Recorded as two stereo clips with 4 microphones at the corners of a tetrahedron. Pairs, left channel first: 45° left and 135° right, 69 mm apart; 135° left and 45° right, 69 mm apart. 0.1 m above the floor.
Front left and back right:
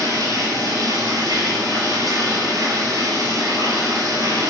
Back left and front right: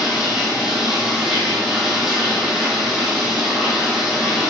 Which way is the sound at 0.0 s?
130° right.